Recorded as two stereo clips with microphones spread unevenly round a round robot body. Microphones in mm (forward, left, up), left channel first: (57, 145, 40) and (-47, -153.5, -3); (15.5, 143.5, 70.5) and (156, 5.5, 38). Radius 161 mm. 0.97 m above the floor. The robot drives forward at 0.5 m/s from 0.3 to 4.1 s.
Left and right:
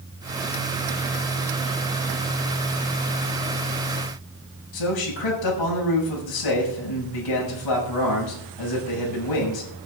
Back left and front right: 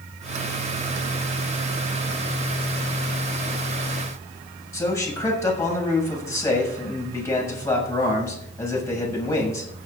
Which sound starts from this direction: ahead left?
A man speaking, at 4.7 s.